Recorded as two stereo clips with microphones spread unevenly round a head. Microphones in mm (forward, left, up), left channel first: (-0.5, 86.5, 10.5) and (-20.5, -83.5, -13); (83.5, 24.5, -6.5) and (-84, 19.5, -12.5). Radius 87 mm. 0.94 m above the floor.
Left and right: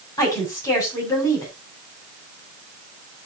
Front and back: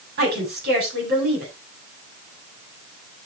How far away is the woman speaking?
About 7.5 m.